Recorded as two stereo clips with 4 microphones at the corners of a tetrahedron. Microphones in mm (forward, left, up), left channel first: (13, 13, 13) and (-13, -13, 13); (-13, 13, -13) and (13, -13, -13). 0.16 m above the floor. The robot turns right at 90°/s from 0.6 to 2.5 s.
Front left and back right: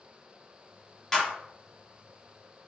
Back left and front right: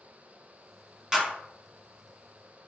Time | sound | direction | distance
1.1 | a clap | 15° right | 1.2 m